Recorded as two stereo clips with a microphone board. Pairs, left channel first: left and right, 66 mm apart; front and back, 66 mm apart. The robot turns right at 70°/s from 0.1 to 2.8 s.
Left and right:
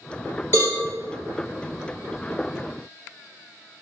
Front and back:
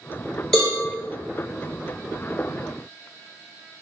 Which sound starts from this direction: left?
A cowbell, at 0.5 s.